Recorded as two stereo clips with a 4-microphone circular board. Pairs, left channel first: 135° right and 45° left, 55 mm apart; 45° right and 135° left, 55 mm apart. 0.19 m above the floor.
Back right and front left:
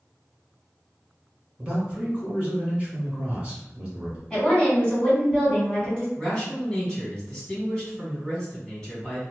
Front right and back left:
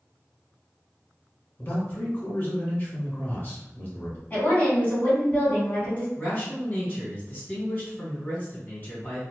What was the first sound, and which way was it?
A man speaking, 10° right.